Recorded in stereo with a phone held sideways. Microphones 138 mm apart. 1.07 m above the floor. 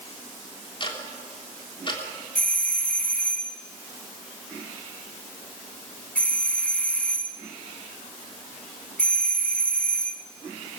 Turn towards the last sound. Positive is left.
turn(degrees=10)  # may be behind; listen again after turning